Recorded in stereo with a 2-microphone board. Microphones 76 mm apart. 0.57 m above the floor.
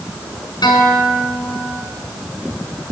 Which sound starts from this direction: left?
A guitar, at 0.6 s.